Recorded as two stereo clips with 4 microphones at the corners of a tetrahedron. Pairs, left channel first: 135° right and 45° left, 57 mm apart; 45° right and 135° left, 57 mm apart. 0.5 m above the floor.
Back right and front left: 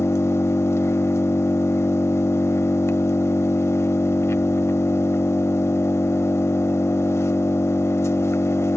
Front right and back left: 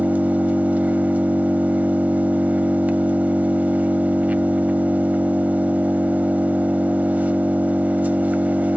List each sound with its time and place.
0.0 s an engine running: 165° right, 1.0 m